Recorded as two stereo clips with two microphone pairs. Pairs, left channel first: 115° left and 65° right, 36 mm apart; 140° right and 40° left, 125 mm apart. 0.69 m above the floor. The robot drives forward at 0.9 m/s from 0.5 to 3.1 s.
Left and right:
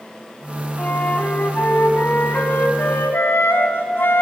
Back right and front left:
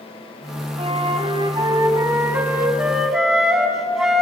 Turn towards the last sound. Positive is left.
turn(degrees=125)